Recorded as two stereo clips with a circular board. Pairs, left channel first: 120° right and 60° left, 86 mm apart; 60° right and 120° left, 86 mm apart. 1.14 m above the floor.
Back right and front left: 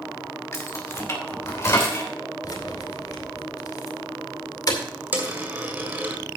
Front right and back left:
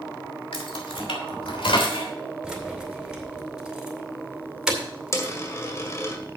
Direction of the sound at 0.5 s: 65° right.